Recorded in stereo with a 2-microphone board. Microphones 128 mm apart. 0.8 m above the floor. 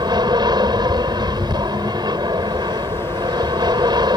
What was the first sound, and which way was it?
An aircraft, 35° right (ahead or behind).